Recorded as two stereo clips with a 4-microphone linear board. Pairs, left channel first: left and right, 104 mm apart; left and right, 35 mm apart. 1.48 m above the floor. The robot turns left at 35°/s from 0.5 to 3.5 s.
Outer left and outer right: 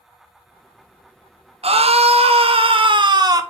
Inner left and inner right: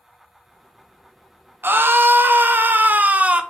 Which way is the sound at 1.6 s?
80° right.